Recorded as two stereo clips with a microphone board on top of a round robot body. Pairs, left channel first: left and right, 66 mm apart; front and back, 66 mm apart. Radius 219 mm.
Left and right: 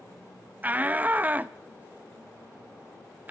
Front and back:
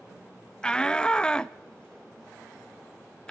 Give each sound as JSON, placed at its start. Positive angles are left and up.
{"t": 0.6, "sound": "a shout", "azimuth_deg": -60, "distance_m": 0.6}